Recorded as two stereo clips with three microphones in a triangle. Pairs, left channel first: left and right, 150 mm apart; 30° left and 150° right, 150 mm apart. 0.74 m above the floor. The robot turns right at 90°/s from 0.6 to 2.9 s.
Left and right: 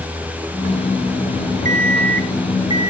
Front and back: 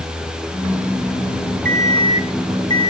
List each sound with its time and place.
1.6 s an alarm clock: 130° right, 1.1 m; by 2.9 s 15° right, 1.1 m